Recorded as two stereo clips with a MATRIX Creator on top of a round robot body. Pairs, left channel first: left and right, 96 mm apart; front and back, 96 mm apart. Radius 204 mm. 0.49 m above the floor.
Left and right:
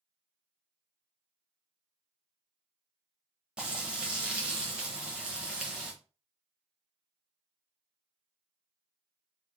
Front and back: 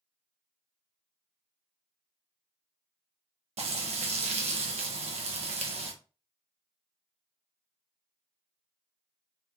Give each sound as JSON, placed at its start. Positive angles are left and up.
{"t": 3.6, "sound": "frying", "azimuth_deg": -170, "distance_m": 0.9}